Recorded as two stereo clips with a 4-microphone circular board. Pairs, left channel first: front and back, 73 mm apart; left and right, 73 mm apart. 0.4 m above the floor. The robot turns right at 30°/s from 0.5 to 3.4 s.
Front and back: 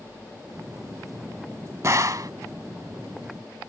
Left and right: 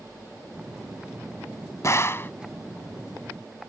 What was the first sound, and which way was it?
A gunshot, 135° left.